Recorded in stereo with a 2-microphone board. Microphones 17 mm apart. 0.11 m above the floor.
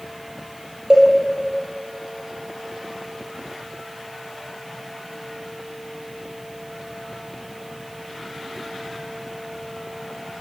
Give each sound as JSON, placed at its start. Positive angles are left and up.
{"t": 0.9, "sound": "a cowbell", "side_deg": -50, "distance_m": 2.5}